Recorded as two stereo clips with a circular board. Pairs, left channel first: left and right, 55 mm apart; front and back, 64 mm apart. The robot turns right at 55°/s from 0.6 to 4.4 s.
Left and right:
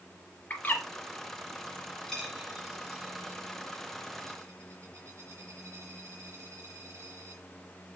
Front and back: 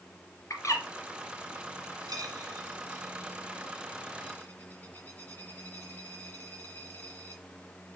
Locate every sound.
0.5 s a bird: 30° left, 2.5 m; by 0.8 s 45° left, 2.5 m
2.1 s a dropped coin: 170° left, 3.5 m; by 7.4 s 65° right, 3.5 m